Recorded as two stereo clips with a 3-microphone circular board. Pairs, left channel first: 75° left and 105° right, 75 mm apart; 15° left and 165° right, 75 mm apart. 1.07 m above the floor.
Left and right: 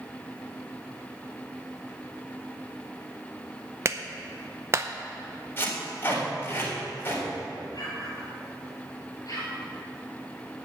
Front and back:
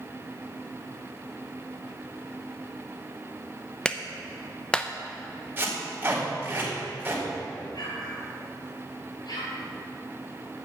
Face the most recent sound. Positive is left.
turn(degrees=35)